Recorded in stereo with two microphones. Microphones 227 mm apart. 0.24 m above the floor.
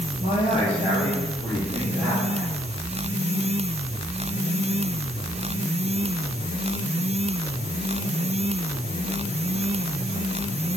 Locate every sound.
0.2 s a man speaking: 35° left (ahead or behind), 3.5 m; by 2.5 s centre (ahead or behind), 4 m